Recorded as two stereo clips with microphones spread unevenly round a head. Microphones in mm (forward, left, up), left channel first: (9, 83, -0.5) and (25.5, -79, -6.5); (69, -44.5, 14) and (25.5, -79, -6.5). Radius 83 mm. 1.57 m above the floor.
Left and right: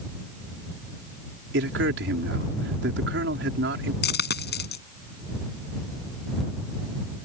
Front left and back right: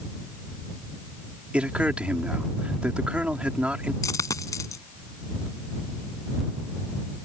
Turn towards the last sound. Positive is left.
turn(degrees=75)